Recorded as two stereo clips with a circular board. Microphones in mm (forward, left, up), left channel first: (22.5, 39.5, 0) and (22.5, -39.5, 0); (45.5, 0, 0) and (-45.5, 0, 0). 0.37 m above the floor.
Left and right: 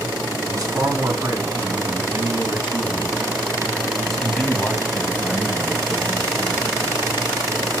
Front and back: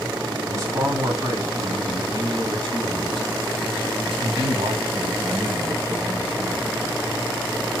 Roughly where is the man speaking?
Behind right.